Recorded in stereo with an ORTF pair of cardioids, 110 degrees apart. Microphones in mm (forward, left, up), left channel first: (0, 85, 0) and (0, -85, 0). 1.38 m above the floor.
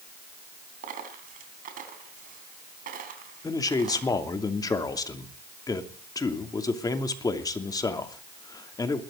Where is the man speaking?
20° left, 2.5 m.